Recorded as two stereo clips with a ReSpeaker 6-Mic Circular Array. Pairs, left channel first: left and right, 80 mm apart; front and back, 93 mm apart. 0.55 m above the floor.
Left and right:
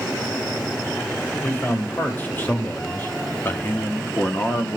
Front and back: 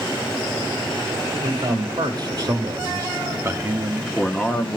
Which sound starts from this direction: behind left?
A man speaking, at 1.4 s.